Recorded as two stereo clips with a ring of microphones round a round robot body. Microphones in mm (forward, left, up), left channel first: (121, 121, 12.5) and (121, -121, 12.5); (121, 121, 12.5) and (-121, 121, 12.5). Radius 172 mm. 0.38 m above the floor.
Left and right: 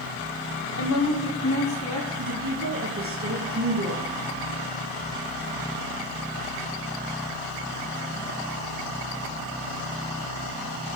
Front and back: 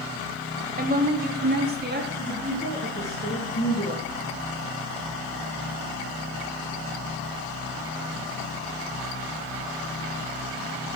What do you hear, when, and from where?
0.8 s a woman speaking: 130° left, 1.7 m; by 2.1 s 135° left, 3.5 m
2.2 s a woman speaking: 65° right, 3.5 m